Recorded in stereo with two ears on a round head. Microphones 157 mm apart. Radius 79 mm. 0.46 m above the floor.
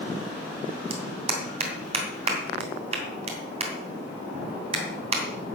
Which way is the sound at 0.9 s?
35° right (ahead or behind).